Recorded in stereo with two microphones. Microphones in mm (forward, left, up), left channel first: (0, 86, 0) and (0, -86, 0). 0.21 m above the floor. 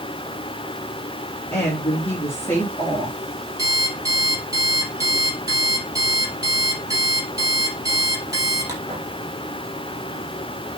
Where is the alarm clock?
20° right (ahead or behind), 3.5 m.